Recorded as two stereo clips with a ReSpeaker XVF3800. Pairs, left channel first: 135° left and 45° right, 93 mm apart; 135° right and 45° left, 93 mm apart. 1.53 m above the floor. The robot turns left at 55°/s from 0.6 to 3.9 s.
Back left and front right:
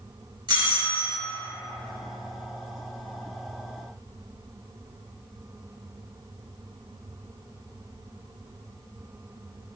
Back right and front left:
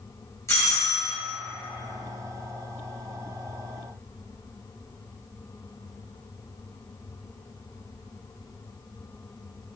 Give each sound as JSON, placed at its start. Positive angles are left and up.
{"t": 0.5, "sound": "a doorbell", "azimuth_deg": -75, "distance_m": 1.5}